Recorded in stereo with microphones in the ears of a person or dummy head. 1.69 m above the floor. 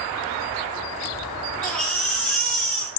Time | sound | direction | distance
1.6 | a baby crying | 5° left (ahead or behind) | 0.8 m